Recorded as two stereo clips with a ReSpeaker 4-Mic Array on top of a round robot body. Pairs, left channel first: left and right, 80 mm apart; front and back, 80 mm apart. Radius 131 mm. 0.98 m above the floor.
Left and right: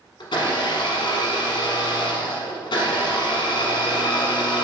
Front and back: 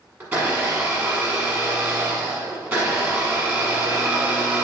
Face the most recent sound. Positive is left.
turn(degrees=115)